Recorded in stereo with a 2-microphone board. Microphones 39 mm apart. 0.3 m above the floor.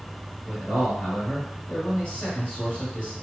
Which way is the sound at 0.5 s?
30° left (ahead or behind).